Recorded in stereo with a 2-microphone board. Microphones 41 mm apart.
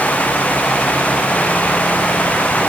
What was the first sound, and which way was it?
Only background noise.